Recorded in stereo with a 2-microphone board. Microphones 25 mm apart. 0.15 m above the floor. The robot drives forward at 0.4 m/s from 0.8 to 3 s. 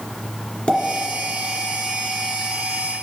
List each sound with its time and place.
0.7 s a pop: 50° left (ahead or behind), 2 m